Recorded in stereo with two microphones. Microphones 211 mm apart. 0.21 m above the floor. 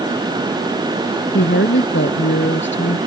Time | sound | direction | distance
1.3 | a woman speaking | 65° left (ahead or behind) | ?